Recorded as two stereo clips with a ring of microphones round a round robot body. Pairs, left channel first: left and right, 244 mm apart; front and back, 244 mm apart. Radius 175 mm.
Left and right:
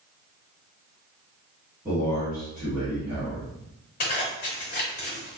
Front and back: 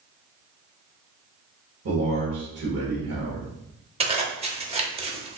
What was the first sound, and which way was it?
A man speaking, 175° right.